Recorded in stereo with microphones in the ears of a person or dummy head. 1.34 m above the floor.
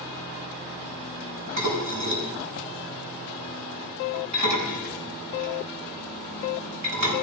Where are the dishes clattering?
75° right (ahead or behind), 8 m.